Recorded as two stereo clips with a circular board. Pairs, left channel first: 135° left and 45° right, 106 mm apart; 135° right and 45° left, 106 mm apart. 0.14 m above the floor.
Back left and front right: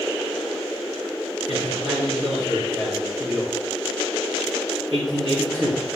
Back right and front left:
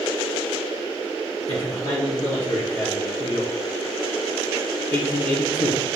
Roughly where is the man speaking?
Right.